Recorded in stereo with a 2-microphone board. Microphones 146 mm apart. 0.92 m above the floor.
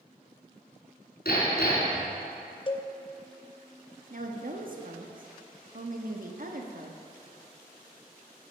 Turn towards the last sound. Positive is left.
turn(degrees=-60)  # may be behind; listen again after turning